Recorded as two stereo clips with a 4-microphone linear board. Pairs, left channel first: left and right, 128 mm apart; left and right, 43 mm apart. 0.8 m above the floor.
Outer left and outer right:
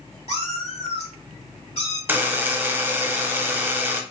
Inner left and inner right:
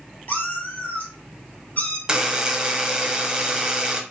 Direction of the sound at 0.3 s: 60° left (ahead or behind).